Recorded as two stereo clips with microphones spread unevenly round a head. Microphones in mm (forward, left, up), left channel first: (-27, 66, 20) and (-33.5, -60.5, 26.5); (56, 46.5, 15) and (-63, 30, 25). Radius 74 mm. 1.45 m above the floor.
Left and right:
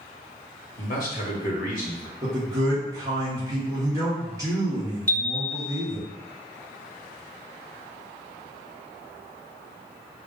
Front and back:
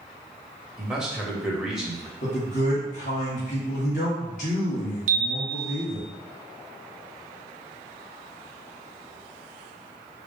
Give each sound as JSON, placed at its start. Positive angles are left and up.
{"t": 0.8, "sound": "a man speaking", "azimuth_deg": 105, "distance_m": 1.4}
{"t": 2.2, "sound": "a man speaking", "azimuth_deg": -25, "distance_m": 1.5}
{"t": 5.1, "sound": "a chime", "azimuth_deg": 160, "distance_m": 0.6}